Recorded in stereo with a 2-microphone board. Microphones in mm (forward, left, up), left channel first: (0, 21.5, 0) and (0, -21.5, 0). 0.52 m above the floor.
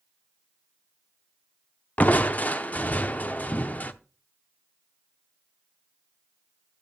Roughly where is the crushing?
Left.